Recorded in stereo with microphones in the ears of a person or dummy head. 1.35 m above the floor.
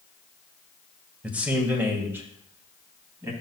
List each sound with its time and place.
1.2 s a man speaking: 5° right (ahead or behind), 1.4 m; by 3.3 s 15° right (ahead or behind), 2.5 m